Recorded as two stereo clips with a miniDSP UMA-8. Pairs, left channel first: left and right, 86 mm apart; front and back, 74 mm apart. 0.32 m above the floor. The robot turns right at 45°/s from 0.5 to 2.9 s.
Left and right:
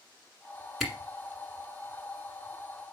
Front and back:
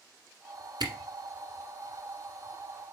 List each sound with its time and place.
0.8 s a camera shutter: straight behind, 1.3 m; by 0.9 s 175° right, 1.3 m